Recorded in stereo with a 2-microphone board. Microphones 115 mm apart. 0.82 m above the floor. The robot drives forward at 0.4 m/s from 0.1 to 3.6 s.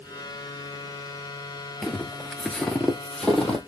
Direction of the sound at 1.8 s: Centre (ahead or behind).